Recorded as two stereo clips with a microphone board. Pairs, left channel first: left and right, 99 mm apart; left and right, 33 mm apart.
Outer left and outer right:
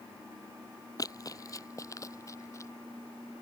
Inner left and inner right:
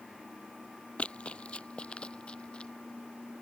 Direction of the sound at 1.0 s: 35° left (ahead or behind).